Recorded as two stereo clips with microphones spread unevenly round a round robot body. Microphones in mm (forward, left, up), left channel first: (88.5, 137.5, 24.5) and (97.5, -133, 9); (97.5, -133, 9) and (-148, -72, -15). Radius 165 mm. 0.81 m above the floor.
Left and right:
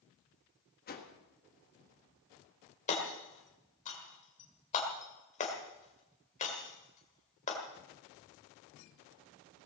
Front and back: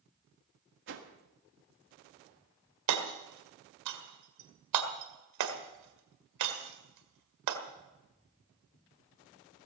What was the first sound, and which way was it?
A whoosh, 150° left.